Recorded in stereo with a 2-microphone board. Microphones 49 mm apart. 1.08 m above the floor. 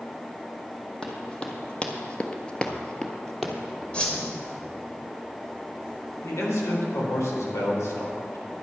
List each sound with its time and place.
1.0 s running footsteps: 20° left (ahead or behind), 2.5 m; by 3.8 s centre (ahead or behind), 2.5 m
3.9 s a whoosh: 20° left (ahead or behind), 2 m
6.2 s a man speaking: 85° left, 3.5 m